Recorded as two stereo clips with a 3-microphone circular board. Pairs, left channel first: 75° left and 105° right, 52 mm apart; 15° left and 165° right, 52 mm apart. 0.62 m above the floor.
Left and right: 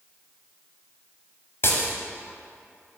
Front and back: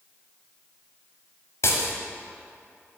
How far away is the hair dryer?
I don't hear a hair dryer.